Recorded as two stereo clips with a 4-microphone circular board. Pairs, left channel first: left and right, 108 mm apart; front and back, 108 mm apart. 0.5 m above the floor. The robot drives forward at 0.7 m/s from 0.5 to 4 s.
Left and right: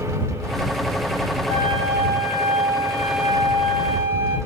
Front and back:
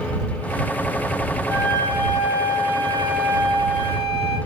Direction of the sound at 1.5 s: 60° right.